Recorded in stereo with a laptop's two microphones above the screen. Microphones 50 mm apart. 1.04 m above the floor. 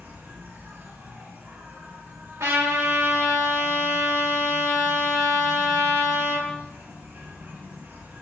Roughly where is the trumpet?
Right.